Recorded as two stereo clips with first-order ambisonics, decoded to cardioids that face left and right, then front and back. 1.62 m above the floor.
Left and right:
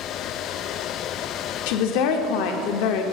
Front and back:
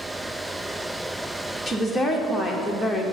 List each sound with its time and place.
1.7 s a woman speaking: 90° left, 0.6 m